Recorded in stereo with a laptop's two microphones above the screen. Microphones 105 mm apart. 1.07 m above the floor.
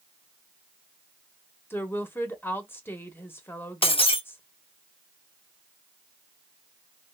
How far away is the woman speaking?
About 1.1 m.